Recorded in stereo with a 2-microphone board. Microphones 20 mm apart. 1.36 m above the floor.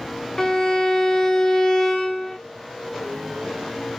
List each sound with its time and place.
0.4 s a violin: 25° left (ahead or behind), 0.5 m